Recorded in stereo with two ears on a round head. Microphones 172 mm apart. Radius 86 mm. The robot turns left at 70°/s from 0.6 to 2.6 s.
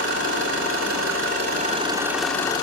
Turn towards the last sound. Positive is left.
turn(degrees=155)